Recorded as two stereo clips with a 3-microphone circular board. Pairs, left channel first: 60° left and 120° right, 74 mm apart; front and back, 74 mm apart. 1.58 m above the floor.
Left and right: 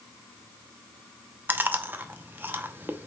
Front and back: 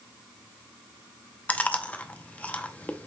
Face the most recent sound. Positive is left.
turn(degrees=-65)